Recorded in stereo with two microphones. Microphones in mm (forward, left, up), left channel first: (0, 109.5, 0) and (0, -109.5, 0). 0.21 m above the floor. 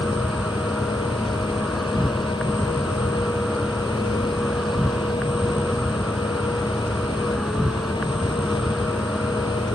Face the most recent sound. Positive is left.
turn(degrees=0)  # may be behind; listen again after turning